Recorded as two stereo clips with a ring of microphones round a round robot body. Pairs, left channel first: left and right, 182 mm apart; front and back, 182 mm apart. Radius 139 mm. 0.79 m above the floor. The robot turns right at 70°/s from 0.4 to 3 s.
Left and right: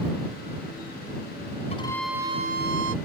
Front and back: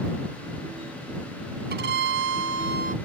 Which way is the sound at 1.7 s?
155° left.